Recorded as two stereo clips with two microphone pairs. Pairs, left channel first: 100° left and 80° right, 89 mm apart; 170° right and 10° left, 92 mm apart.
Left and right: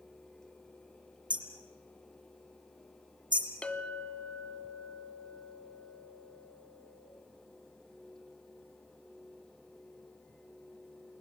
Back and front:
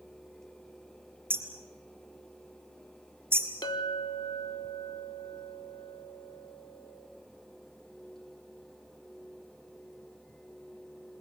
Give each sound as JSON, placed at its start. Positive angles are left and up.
{"t": 1.3, "sound": "hammering", "azimuth_deg": -55, "distance_m": 3.5}
{"t": 3.6, "sound": "a clink", "azimuth_deg": 175, "distance_m": 1.1}